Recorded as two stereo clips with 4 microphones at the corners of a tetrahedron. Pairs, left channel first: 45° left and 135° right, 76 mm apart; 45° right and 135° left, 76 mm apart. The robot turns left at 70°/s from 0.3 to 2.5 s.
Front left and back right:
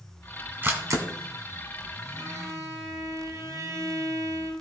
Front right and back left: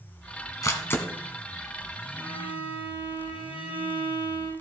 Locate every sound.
0.6 s a camera shutter: 80° right, 1.5 m; by 1.1 s 110° right, 1.5 m
2.2 s a violin: 165° right, 6.5 m; by 4.5 s 170° left, 6.5 m